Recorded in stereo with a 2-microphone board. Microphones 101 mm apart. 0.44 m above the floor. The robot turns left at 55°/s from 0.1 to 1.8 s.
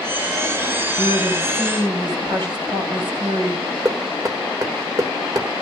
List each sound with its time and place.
1.0 s a woman speaking: 70° right, 3 m; by 3.6 s 115° right, 3 m
3.9 s knocking: 35° right (ahead or behind), 1.2 m